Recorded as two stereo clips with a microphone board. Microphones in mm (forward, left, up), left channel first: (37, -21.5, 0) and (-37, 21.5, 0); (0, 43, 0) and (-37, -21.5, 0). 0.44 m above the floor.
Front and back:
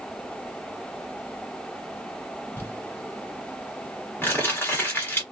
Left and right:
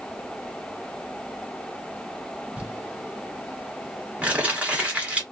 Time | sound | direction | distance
2.6 | crumpling | 65° right | 1.3 m